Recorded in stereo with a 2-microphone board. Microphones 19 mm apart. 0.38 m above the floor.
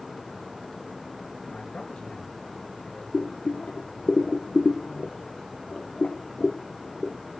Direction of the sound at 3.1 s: 75° left (ahead or behind).